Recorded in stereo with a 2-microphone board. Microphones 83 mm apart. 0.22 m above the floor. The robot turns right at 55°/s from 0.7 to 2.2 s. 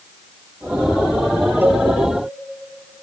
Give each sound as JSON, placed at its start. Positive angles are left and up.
{"t": 1.6, "sound": "a cowbell", "side_deg": -25, "distance_m": 1.9}